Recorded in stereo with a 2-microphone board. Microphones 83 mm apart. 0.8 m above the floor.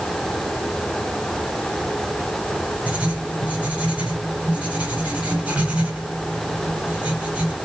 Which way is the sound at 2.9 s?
15° right (ahead or behind).